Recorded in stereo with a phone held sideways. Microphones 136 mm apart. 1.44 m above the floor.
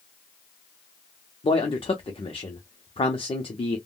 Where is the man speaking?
45° left (ahead or behind), 0.6 m.